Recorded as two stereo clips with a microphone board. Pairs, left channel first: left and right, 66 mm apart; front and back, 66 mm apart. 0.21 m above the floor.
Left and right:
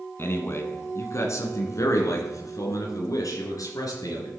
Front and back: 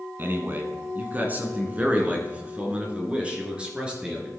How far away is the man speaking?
About 2.5 m.